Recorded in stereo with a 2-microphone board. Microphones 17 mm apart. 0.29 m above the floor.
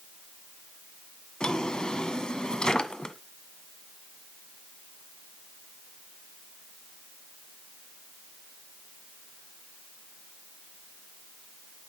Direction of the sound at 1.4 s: 60° left (ahead or behind).